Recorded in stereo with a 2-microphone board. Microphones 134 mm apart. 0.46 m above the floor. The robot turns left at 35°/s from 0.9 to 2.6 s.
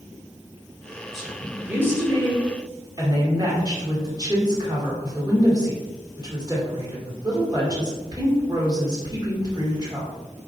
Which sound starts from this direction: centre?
A woman speaking, at 1.1 s.